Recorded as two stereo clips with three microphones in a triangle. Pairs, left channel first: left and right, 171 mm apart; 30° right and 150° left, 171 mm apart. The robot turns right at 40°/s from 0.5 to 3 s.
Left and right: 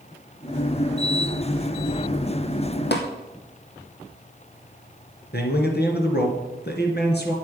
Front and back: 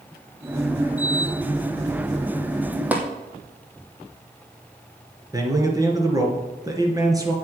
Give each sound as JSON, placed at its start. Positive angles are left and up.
{"t": 2.9, "sound": "tapping", "azimuth_deg": 70, "distance_m": 2.5}
{"t": 5.3, "sound": "a man speaking", "azimuth_deg": 80, "distance_m": 2.5}